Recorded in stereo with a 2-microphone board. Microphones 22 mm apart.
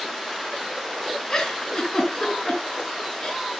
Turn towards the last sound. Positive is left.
turn(degrees=20)  # may be behind; listen again after turning